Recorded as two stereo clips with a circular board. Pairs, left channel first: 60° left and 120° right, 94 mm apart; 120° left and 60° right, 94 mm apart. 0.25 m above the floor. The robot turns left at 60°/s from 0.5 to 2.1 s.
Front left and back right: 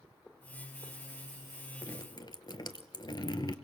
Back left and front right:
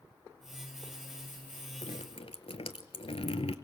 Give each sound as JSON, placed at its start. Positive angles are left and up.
{"t": 1.8, "sound": "dripping", "azimuth_deg": 120, "distance_m": 1.0}